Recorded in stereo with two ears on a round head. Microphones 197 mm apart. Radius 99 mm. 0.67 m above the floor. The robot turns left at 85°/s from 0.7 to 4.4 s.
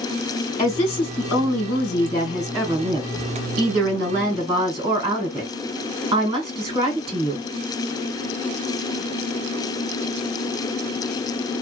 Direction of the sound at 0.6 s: 160° left.